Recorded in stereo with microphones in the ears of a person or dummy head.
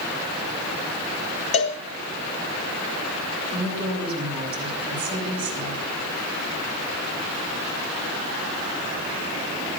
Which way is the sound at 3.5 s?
30° right (ahead or behind).